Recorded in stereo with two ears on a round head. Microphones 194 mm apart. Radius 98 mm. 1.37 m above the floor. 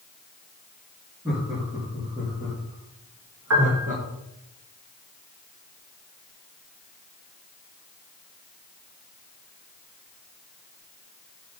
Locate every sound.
1.2 s laughter: 15° right (ahead or behind), 3.5 m; by 4.0 s 40° right (ahead or behind), 1.8 m
3.5 s a piano: 80° right, 2.5 m